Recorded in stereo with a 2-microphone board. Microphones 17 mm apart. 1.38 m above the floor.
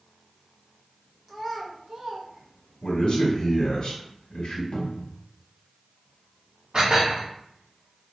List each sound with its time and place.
1.3 s a child speaking: 15° right (ahead or behind), 1.0 m; by 3.0 s 60° right (ahead or behind), 1.1 m
2.8 s a man speaking: 60° left (ahead or behind), 1.5 m
4.7 s a cupboard door: 85° left, 0.9 m
6.7 s dishes clattering: 60° right (ahead or behind), 1.9 m